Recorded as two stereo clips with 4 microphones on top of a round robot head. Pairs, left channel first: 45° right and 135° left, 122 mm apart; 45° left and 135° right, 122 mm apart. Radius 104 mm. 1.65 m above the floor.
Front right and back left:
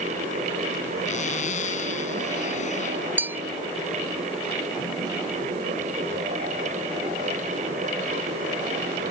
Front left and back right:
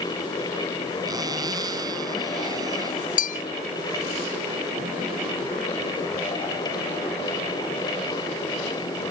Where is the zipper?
75° right.